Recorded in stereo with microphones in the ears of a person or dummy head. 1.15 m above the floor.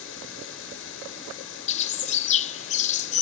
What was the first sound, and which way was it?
Running water, 75° left (ahead or behind).